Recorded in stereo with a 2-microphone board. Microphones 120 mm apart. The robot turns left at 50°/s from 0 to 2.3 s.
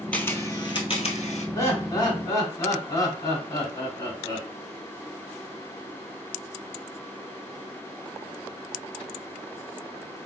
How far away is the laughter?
About 1.7 m.